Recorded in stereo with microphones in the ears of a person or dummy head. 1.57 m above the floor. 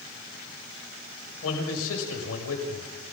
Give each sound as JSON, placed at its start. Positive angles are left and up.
{"t": 1.4, "sound": "a man speaking", "side_deg": 85, "distance_m": 7.0}